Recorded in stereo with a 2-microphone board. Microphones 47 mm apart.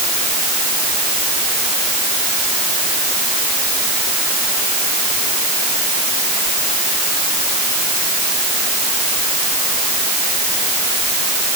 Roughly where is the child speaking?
No child speaking in this recording.